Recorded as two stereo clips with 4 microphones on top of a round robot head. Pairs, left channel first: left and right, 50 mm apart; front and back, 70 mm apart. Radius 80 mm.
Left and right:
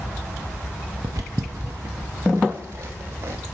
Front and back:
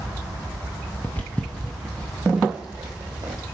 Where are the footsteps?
70° right, 1.5 m; by 3.4 s 115° right, 2.5 m.